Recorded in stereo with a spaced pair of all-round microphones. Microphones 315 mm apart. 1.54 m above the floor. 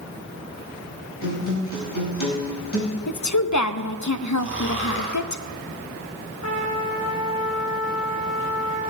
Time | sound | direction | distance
1.2 | a guitar | 80° left | 5 m
3.1 | a woman speaking | 60° left (ahead or behind) | 0.6 m
4.4 | snoring | 40° left (ahead or behind) | 2.5 m
6.4 | a trumpet | 65° left (ahead or behind) | 2.5 m